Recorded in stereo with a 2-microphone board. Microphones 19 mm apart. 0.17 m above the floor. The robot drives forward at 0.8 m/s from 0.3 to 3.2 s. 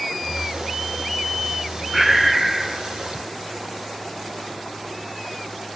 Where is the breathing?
5° right (ahead or behind), 0.5 m.